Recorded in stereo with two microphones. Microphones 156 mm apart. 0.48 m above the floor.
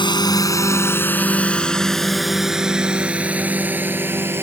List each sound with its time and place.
0.0 s a drone: 30° left (ahead or behind); by 4.5 s 15° right (ahead or behind)